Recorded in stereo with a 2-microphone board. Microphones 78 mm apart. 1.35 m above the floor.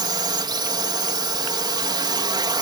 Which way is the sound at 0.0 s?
65° right (ahead or behind).